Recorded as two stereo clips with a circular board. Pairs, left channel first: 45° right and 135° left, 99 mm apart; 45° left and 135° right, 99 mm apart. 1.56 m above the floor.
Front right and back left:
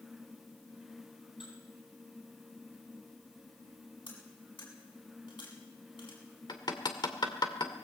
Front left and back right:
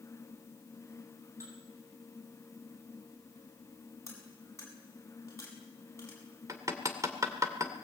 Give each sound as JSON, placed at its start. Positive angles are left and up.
{"t": 1.4, "sound": "dishes clattering", "azimuth_deg": -75, "distance_m": 8.0}
{"t": 4.1, "sound": "cutlery clinking", "azimuth_deg": -15, "distance_m": 8.0}
{"t": 6.5, "sound": "hammering", "azimuth_deg": -85, "distance_m": 2.5}